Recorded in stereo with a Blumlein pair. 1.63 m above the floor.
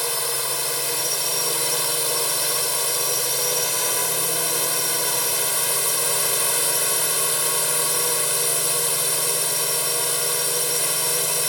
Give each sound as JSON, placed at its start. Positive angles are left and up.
{"t": 0.0, "sound": "a drone", "azimuth_deg": 0}